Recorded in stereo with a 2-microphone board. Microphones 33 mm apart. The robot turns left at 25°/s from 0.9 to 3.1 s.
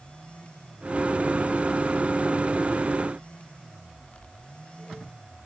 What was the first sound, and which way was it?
Only background noise.